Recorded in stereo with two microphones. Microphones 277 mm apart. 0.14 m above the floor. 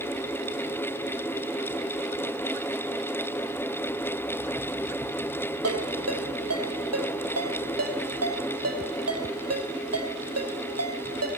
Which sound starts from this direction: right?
A ringtone, at 5.6 s.